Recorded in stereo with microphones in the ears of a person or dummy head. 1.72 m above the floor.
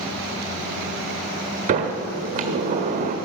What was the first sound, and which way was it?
A sliding door, 30° right (ahead or behind).